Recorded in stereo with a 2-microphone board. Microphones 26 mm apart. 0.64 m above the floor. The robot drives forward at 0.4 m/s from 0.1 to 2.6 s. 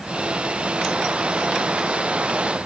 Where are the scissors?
No scissors in this recording.